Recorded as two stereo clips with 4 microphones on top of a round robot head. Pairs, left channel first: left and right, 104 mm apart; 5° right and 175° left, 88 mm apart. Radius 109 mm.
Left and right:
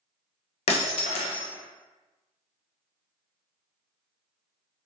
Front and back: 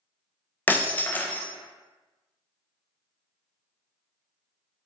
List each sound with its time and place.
0.7 s breaking glass: 65° left, 0.7 m